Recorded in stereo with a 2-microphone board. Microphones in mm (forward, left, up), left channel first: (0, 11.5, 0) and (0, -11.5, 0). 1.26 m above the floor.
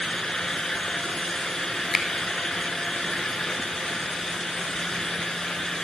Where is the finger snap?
15° right (ahead or behind), 1.1 m.